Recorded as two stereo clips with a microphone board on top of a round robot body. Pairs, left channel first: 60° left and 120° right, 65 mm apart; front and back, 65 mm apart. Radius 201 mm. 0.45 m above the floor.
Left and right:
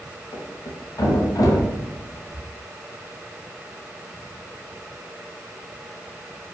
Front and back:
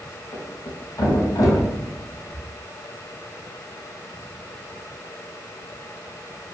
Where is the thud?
30° left, 1.8 m.